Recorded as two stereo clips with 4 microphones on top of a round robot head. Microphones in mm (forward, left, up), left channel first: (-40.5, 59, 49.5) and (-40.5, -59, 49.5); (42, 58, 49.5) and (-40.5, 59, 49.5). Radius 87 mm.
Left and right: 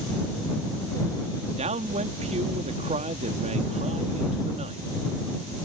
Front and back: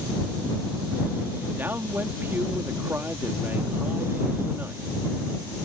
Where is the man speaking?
110° right.